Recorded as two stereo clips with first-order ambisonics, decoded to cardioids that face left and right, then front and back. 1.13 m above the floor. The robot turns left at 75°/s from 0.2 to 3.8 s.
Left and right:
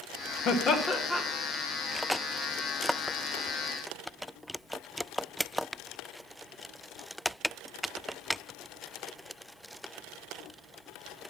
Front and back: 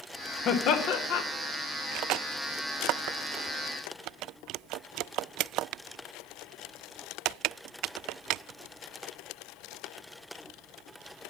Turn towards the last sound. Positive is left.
turn(degrees=160)